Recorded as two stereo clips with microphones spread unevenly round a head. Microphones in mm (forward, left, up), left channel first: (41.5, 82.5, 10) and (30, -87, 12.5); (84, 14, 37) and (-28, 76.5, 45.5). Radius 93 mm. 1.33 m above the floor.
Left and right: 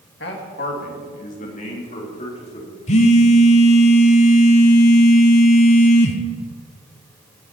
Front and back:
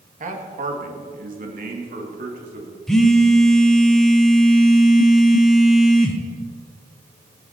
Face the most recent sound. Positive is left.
turn(degrees=60)